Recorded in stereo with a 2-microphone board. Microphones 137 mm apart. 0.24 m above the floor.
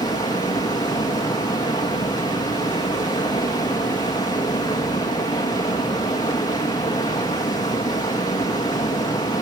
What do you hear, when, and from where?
0.0 s running water: 30° left (ahead or behind), 4.5 m